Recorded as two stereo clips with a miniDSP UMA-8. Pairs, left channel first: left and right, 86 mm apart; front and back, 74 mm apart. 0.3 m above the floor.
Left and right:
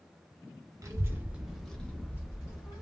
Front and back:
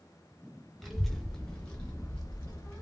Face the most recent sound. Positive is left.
turn(degrees=70)